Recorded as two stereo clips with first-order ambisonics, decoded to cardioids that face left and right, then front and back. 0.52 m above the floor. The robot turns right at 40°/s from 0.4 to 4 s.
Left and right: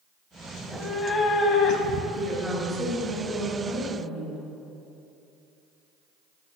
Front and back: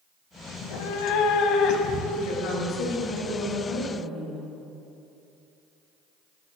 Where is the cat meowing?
Straight ahead, 0.8 m; by 2.0 s 55° left, 0.8 m.